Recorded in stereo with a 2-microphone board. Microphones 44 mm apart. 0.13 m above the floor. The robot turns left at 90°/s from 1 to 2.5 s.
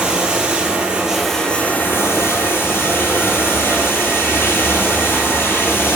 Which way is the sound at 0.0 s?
155° right.